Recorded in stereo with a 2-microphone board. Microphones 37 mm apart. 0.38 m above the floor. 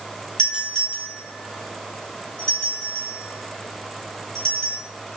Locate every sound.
0.4 s a doorbell: 30° left (ahead or behind), 4 m